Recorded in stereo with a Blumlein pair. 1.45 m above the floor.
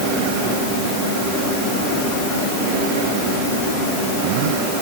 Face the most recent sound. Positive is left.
No sound to turn to.